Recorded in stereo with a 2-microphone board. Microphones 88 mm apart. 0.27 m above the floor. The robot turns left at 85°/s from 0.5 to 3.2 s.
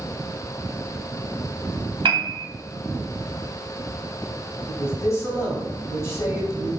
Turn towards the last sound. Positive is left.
turn(degrees=35)  # may be behind; listen again after turning